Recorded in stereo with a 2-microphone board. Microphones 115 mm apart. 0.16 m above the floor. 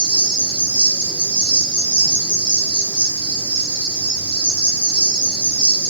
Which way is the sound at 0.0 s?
45° right (ahead or behind).